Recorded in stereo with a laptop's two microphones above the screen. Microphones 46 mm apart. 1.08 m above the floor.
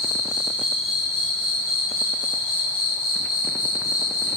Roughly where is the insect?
Centre.